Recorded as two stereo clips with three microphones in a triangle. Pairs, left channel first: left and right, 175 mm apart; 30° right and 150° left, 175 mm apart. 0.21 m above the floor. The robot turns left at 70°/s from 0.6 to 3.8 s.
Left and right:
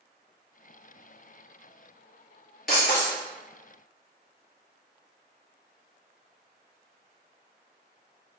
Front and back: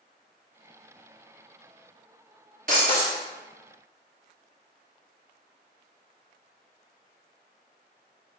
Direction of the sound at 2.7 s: 115° left.